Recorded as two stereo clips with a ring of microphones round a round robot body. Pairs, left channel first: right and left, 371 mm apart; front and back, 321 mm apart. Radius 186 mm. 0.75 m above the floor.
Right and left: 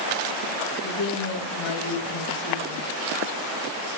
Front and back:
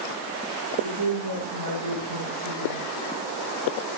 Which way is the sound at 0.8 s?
135° right.